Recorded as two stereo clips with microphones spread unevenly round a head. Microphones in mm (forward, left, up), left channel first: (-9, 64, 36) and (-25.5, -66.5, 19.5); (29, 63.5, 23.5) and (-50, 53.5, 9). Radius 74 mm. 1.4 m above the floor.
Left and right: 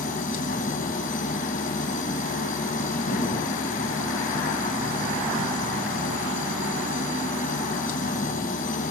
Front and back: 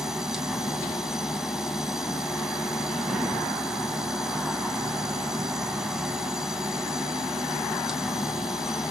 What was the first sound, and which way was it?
A machine running, 100° left.